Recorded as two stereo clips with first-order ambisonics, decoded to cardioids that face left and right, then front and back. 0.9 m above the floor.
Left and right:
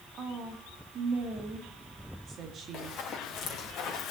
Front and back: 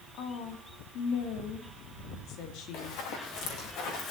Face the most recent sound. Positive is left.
turn(degrees=30)